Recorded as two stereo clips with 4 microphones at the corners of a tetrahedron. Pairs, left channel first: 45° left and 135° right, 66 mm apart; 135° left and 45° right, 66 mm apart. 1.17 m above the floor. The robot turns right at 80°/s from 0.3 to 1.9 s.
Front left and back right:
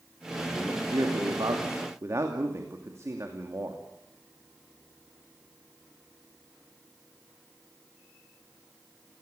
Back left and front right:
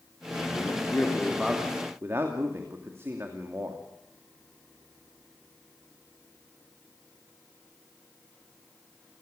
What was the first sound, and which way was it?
A man speaking, 160° left.